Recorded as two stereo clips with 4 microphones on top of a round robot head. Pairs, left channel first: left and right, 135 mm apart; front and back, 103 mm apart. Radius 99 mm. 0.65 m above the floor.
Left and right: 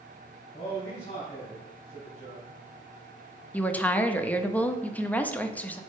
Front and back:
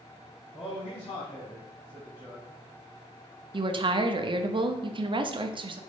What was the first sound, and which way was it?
A man speaking, 15° left.